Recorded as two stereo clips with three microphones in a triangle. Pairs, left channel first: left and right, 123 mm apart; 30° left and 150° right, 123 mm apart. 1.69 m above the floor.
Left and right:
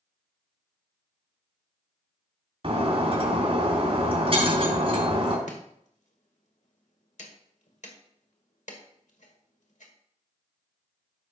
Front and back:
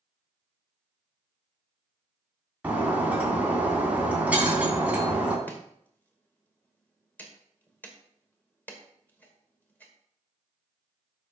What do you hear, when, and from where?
2.6 s breaking glass: 75° right, 2.5 m
5.5 s chopping: 105° left, 1.7 m